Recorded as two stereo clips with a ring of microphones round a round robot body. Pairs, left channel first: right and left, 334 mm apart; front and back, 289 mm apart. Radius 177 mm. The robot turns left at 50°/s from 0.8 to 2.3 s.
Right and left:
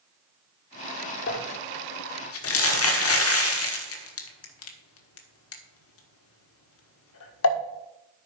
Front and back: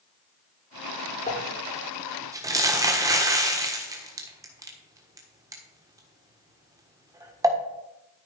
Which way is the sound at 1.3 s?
55° right.